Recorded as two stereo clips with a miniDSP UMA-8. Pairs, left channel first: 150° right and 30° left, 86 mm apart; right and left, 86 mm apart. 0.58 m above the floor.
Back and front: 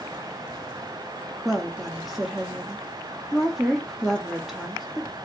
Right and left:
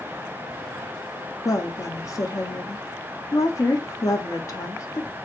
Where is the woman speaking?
55° right, 0.7 m.